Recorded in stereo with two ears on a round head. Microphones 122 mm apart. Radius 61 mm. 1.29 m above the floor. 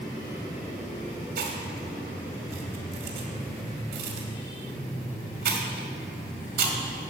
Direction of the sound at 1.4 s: 80° right.